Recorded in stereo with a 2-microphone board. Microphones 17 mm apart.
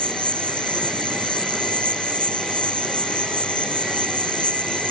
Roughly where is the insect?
Left.